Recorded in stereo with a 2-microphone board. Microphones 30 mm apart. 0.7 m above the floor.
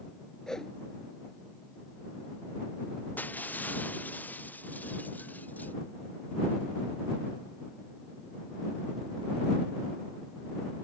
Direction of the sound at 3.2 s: 70° left (ahead or behind).